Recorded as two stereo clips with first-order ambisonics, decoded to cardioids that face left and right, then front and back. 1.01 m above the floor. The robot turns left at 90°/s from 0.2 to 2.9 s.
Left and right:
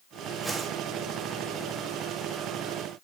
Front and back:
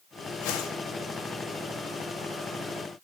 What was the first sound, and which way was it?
A whoosh, straight ahead.